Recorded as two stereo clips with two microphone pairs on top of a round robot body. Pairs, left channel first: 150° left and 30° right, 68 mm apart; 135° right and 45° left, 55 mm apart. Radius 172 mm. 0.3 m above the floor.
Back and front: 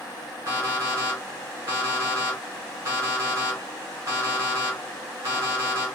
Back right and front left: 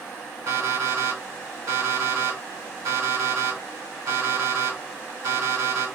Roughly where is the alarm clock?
Ahead left.